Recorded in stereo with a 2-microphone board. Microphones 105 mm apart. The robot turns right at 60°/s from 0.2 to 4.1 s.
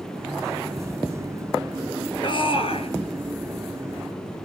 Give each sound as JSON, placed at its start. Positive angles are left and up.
{"t": 2.2, "sound": "a shout", "azimuth_deg": 55, "distance_m": 2.5}